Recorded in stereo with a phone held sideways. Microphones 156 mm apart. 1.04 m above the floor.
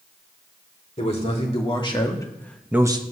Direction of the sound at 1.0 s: 45° left (ahead or behind).